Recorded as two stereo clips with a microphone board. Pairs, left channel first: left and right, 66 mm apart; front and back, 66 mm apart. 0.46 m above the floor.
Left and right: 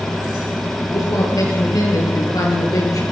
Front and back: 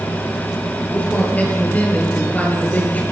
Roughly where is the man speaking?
Ahead left.